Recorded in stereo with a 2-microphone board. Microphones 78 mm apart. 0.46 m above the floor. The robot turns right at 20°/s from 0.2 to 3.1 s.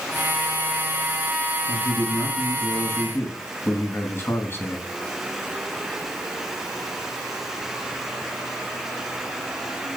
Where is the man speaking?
60° left (ahead or behind), 3.5 m; by 4.9 s 30° left (ahead or behind), 3.5 m.